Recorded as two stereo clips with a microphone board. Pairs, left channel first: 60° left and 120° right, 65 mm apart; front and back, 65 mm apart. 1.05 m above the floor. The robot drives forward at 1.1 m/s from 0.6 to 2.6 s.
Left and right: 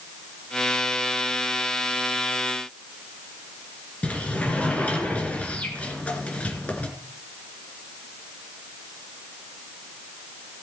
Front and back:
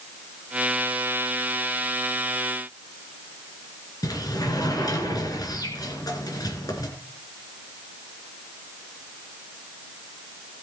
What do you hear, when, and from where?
4.0 s a sliding door: 10° right, 3 m